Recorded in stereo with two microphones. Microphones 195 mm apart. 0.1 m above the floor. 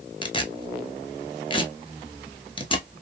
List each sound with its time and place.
0.2 s tearing paper: 25° left (ahead or behind), 0.7 m